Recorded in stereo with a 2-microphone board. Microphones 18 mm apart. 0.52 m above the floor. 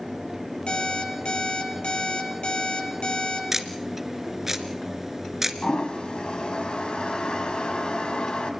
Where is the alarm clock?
65° left (ahead or behind), 9 m.